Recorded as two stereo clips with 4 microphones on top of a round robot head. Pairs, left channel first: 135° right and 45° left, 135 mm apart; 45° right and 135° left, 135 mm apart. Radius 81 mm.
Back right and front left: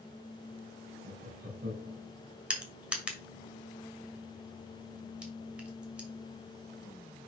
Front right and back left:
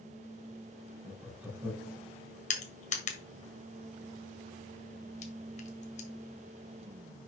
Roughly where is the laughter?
Ahead left.